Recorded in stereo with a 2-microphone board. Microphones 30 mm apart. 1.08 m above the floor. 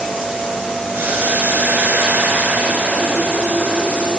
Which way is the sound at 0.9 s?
85° right.